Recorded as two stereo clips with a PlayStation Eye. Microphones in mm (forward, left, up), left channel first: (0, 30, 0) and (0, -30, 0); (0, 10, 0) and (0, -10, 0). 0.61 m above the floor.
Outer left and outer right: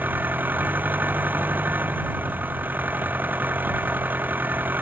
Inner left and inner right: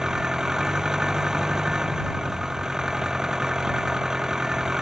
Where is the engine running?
30° right (ahead or behind).